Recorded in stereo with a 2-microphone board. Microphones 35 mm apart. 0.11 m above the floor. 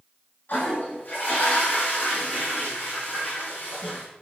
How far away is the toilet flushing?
About 5 m.